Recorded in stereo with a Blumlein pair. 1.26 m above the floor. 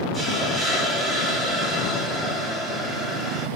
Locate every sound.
0.1 s a hiss: 5° right, 0.6 m